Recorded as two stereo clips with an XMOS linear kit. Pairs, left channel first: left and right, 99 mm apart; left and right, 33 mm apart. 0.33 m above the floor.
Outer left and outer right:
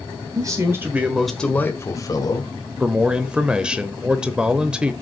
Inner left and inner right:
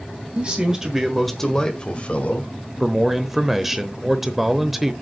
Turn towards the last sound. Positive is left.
turn(degrees=-10)  # may be behind; listen again after turning